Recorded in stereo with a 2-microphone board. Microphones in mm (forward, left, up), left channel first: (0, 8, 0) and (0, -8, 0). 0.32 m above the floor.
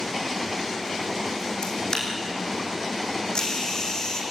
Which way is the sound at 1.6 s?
40° left (ahead or behind).